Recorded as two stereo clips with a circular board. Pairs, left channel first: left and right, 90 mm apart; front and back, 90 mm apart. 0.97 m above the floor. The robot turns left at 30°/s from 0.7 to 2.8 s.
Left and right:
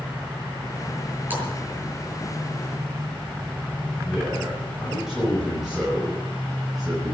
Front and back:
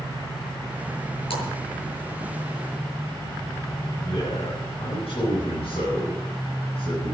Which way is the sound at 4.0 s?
5° right.